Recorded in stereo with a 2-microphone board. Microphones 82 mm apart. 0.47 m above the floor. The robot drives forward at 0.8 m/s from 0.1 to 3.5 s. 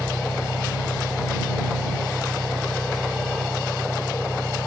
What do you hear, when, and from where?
0.0 s an engine running: 90° left; by 4.7 s 60° left (ahead or behind)